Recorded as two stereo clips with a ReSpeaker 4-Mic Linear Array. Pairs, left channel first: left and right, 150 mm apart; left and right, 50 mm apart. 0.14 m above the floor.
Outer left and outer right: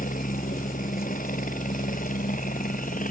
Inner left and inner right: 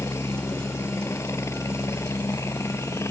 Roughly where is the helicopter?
Left.